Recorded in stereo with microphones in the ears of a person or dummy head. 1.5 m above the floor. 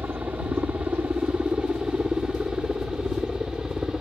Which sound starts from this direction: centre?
A helicopter, at 0.0 s.